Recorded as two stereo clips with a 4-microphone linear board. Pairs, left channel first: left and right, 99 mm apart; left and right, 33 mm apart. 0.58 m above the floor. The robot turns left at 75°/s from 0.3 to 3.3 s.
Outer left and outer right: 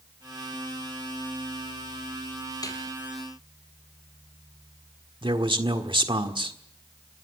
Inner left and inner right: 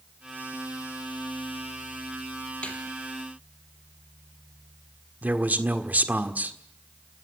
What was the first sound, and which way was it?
A snare drum, 35° left (ahead or behind).